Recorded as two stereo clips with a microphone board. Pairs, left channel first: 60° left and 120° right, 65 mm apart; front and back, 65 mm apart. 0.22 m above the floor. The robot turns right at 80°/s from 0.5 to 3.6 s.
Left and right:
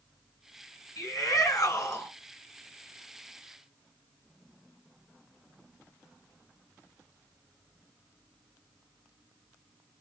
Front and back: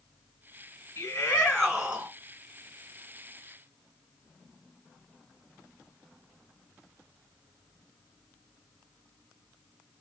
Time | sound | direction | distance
1.0 | a shout | 35° left | 2.5 m